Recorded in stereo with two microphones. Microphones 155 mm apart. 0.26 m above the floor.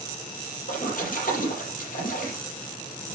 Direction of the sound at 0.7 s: 60° left (ahead or behind).